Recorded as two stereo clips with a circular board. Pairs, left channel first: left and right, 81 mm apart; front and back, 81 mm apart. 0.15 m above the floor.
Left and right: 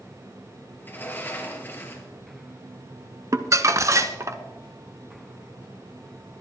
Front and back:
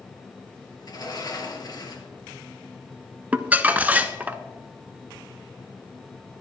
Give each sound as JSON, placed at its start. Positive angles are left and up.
{"t": 0.8, "sound": "a sliding door", "azimuth_deg": 30, "distance_m": 2.0}
{"t": 3.3, "sound": "crumpling", "azimuth_deg": -120, "distance_m": 0.8}